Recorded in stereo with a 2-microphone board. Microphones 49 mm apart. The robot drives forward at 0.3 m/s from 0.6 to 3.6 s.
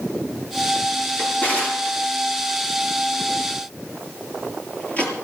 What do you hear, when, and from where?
1.2 s a drawer: 35° left (ahead or behind), 5 m; by 5.1 s 30° left (ahead or behind), 5.5 m